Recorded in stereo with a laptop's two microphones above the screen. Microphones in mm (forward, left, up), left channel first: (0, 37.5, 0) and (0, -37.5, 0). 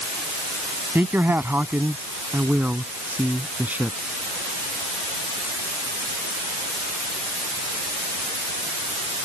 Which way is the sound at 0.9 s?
25° right (ahead or behind).